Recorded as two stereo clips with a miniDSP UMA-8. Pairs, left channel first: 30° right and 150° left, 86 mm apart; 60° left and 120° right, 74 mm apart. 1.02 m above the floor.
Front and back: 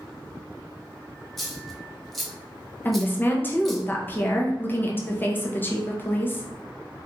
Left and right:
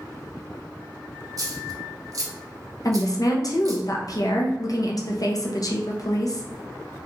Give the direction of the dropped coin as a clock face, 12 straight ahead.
4 o'clock.